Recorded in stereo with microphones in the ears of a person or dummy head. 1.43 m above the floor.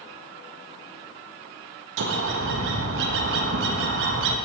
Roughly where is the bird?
Right.